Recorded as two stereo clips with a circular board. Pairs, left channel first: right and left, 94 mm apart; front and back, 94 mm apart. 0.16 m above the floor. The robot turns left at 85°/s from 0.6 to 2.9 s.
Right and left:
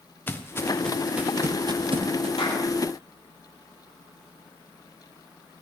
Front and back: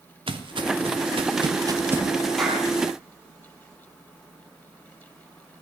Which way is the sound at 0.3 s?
160° right.